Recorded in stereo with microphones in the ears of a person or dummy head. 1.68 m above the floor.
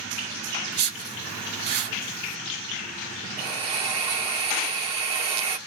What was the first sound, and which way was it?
A whoosh, 45° right (ahead or behind).